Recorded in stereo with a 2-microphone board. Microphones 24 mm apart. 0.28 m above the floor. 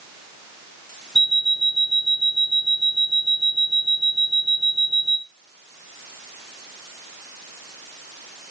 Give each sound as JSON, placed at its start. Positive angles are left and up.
{"t": 1.1, "sound": "an alarm clock", "side_deg": -10, "distance_m": 1.8}